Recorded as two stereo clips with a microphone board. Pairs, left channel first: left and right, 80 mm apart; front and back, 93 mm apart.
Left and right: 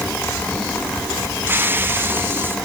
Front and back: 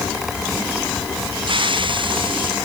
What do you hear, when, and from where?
1.5 s a hiss: 155° right